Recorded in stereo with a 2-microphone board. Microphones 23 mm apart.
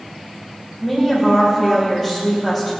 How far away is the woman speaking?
About 5.5 m.